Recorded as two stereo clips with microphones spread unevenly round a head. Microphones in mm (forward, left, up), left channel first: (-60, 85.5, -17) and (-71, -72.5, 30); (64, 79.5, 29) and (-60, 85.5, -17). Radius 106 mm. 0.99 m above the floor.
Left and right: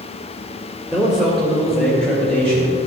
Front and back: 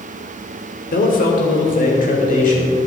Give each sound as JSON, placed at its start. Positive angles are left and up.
{"t": 0.9, "sound": "a man speaking", "azimuth_deg": -5, "distance_m": 2.5}